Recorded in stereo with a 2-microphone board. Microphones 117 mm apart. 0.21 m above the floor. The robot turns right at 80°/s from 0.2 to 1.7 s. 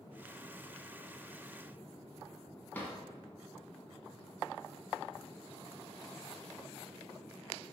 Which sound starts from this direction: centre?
A drawer, at 2.7 s.